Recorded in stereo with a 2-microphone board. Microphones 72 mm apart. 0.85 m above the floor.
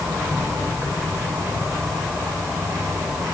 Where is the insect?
40° right (ahead or behind), 4.5 m.